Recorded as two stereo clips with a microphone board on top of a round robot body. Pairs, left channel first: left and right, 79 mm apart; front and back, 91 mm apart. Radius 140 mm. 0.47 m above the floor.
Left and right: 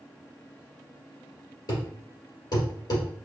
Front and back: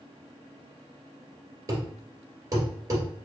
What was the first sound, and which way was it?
A thud, 125° left.